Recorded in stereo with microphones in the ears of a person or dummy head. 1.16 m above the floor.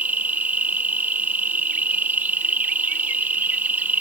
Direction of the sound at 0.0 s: 10° right (ahead or behind).